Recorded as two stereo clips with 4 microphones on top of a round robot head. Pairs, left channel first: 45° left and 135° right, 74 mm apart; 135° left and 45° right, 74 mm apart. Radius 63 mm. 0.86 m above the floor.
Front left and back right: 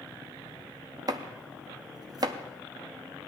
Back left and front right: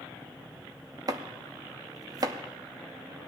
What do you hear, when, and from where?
1.1 s chopping: 95° right, 0.6 m